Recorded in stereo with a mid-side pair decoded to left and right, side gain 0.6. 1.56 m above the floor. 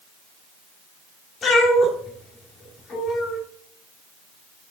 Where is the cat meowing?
45° left, 3 m.